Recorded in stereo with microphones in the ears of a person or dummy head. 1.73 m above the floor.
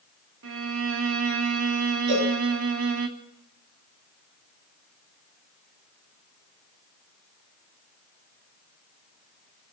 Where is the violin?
70° right (ahead or behind), 2.5 m.